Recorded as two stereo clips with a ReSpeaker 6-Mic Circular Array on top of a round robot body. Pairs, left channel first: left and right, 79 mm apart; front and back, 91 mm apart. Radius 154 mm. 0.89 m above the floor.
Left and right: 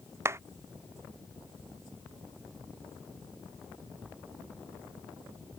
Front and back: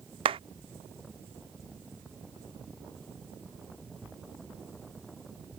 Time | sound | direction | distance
0.2 | a clap | 150° right | ?